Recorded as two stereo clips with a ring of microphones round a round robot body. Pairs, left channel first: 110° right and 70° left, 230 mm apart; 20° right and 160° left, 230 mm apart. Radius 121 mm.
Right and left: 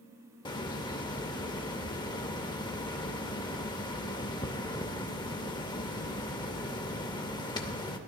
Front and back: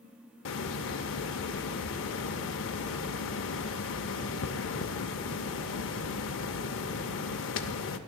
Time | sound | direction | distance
0.5 | a hiss | 45° right | 0.5 m